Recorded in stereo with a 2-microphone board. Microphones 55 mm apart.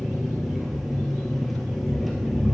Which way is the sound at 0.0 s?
Centre (ahead or behind).